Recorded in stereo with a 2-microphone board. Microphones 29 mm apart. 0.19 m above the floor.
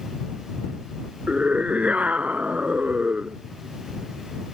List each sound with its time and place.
1.3 s a scream: 50° right (ahead or behind)